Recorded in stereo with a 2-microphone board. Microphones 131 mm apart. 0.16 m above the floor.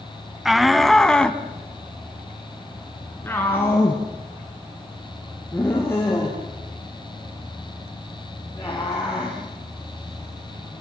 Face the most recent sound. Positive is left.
turn(degrees=15)  # may be behind; listen again after turning